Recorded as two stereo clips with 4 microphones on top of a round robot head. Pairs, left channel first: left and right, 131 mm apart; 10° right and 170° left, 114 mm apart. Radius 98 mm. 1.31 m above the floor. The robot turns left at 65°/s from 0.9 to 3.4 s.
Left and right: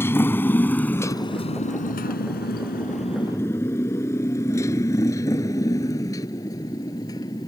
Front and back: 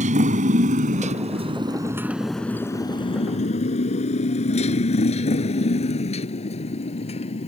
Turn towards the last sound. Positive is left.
turn(degrees=20)